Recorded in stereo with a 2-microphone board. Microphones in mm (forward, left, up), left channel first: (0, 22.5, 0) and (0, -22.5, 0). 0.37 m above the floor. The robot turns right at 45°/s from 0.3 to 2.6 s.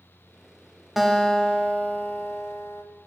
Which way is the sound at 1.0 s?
5° right.